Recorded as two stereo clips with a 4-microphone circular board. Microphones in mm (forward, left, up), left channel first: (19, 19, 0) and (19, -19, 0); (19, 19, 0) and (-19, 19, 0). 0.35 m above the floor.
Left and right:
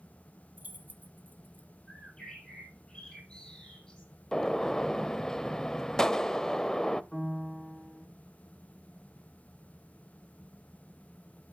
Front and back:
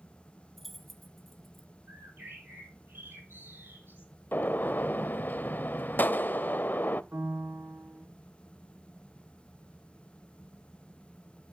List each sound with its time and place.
0.6 s keys jangling: 85° right, 1.2 m
1.9 s a bird: 160° left, 5.5 m
4.3 s a gunshot: 15° left, 0.5 m
7.1 s a piano: 175° left, 2.5 m